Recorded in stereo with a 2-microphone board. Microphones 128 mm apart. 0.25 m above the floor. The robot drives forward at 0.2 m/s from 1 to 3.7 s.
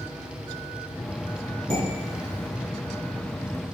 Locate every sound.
1.7 s dishes clattering: 60° right (ahead or behind), 1.4 m